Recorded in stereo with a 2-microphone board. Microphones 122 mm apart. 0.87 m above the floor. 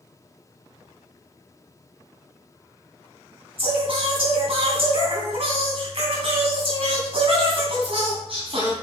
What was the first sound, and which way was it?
Singing, 55° right (ahead or behind).